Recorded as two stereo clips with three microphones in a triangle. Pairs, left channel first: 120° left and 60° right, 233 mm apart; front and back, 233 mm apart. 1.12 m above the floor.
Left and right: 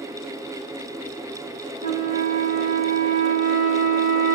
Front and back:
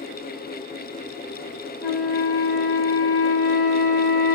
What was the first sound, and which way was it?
A flute, 95° right.